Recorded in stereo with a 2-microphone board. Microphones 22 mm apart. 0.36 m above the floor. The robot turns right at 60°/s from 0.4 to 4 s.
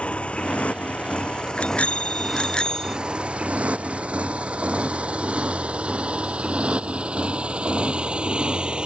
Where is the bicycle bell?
75° left; by 3.0 s 160° left.